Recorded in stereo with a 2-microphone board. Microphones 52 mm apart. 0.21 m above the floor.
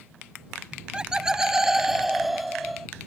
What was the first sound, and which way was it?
Laughter, 20° right (ahead or behind).